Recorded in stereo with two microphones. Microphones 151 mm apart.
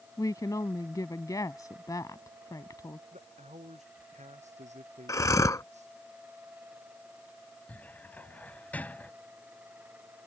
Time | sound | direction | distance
0.2 | a woman speaking | 25° left (ahead or behind) | ?
3.1 | a man speaking | 50° right (ahead or behind) | ?
5.1 | breathing | 20° left (ahead or behind) | ?
7.7 | a cupboard door | 10° left (ahead or behind) | ?